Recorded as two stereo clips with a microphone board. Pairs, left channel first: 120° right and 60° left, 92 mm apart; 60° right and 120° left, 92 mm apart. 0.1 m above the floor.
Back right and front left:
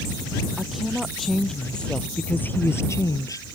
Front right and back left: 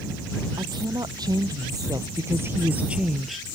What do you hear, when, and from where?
0.6 s a woman speaking: 145° left; by 3.5 s 145° right